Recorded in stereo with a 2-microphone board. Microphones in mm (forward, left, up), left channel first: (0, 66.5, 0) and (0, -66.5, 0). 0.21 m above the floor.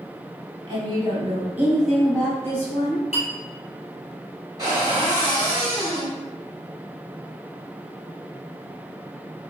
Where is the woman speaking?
35° right (ahead or behind), 1.5 m; by 3.0 s 25° left (ahead or behind), 1.7 m.